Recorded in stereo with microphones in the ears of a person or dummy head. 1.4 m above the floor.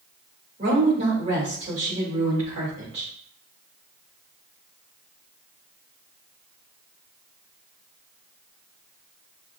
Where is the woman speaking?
35° right (ahead or behind), 2.5 m.